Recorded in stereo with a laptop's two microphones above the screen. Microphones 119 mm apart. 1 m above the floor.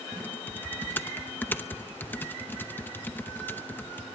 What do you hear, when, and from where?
0.1 s typing on a keyboard: 15° left (ahead or behind), 0.7 m